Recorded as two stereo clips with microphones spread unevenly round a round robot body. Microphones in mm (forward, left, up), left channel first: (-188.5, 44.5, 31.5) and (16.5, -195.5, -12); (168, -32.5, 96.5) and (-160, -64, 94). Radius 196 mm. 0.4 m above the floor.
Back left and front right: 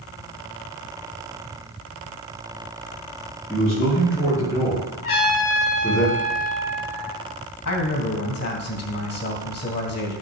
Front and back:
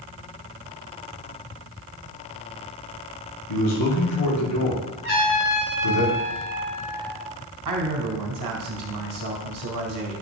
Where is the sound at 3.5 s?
40° left, 5.5 m.